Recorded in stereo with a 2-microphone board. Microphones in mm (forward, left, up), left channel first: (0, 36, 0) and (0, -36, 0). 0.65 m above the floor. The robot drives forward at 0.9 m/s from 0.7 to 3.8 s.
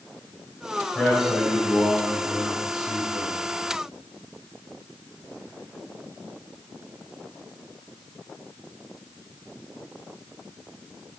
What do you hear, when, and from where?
0.9 s a man speaking: 10° left (ahead or behind), 4 m; by 3.4 s 5° left (ahead or behind), 6 m